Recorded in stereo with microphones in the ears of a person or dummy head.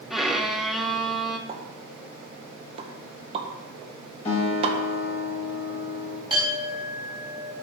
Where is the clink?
15° right (ahead or behind), 4 m.